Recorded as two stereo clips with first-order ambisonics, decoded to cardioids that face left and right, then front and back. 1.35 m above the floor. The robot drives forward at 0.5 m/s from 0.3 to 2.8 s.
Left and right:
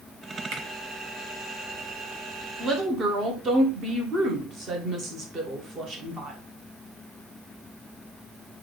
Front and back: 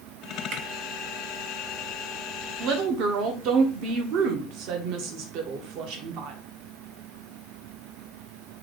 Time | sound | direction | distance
0.5 | a finger snap | 135° right | 1.1 m
2.6 | a woman speaking | 155° right | 0.7 m